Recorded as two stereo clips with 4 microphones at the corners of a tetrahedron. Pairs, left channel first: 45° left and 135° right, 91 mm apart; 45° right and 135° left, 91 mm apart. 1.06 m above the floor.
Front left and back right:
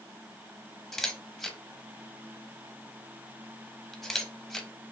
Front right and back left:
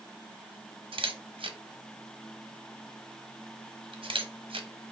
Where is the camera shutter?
130° left, 0.6 m.